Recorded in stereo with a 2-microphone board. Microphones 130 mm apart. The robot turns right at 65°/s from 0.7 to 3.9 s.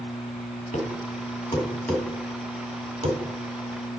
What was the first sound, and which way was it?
A thud, 90° left.